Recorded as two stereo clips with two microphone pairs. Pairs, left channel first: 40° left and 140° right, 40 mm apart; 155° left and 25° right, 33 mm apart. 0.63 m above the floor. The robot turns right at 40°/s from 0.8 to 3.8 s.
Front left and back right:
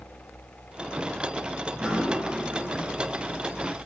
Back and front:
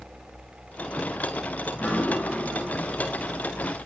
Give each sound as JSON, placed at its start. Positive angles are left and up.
{"t": 1.7, "sound": "dripping", "azimuth_deg": 145, "distance_m": 2.5}